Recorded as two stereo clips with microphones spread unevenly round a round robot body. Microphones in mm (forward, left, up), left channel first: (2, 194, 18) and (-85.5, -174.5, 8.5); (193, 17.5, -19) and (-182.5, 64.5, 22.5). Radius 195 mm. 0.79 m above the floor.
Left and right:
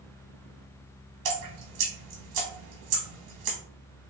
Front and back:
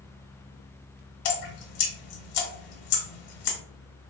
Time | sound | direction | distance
1.2 | dripping | 45° right | 0.9 m